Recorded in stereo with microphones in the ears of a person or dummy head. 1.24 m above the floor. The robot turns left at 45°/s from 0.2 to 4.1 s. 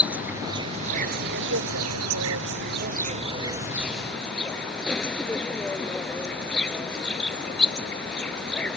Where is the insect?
Straight ahead; by 8.8 s 175° right.